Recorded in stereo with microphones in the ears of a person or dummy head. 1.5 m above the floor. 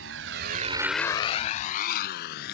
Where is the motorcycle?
75° right (ahead or behind); by 2.5 s 60° left (ahead or behind).